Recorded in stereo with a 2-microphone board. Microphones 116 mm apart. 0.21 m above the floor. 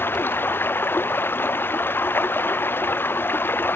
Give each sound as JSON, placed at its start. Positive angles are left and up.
{"t": 0.0, "sound": "running water", "side_deg": 15}